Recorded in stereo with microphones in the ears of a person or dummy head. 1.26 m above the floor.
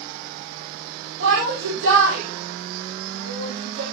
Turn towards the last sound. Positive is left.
turn(degrees=-85)